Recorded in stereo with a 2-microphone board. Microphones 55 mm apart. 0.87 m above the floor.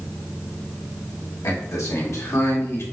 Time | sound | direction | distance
1.4 | a man speaking | 65° left (ahead or behind) | 2.0 m